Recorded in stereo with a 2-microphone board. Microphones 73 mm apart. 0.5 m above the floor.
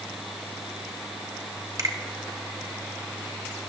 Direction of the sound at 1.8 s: 50° right (ahead or behind).